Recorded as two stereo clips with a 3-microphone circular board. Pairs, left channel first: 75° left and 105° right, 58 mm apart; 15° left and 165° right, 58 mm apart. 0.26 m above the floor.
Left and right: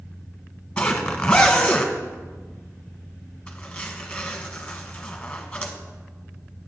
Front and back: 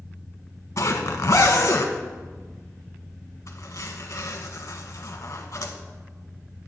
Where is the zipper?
5° left, 0.9 m.